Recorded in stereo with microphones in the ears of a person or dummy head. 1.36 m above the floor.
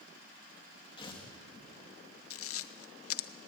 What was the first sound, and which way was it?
Tearing paper, 20° left (ahead or behind).